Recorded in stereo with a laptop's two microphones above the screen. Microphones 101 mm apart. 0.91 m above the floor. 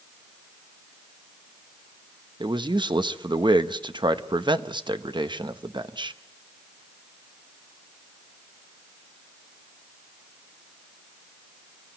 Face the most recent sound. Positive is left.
turn(degrees=-50)  # may be behind; listen again after turning